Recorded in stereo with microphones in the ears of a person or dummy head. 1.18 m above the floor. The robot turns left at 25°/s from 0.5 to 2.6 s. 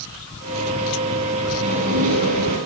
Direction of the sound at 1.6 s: 40° right (ahead or behind).